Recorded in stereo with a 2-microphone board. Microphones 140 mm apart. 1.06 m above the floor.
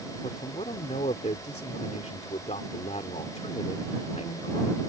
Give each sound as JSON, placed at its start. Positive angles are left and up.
{"t": 0.2, "sound": "a man speaking", "side_deg": 55}